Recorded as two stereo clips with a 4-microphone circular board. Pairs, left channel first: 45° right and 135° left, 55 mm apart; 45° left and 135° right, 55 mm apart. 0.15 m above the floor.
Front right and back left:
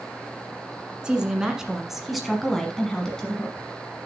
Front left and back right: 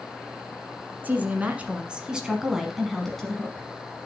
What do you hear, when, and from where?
1.0 s a woman speaking: 165° right, 1.5 m; by 3.7 s 5° right, 1.4 m